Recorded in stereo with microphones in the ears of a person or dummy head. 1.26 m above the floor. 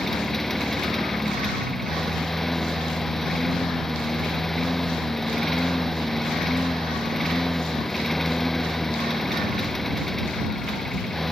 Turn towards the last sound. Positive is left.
turn(degrees=0)  # may be behind; listen again after turning